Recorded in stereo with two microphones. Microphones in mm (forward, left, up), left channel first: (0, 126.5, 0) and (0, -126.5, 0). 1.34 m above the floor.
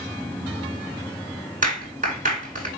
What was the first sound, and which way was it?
A clap, 30° right (ahead or behind).